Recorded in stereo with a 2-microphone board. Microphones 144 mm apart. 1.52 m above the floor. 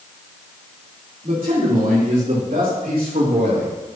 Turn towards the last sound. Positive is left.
turn(degrees=-80)